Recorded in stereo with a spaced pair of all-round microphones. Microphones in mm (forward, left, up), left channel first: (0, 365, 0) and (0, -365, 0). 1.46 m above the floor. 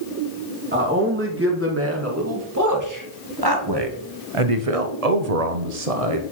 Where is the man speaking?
15° right (ahead or behind), 2.5 m; by 6.2 s 50° right (ahead or behind), 0.9 m.